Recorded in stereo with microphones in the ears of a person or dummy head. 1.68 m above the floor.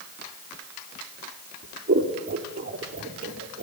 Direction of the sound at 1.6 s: 50° right (ahead or behind).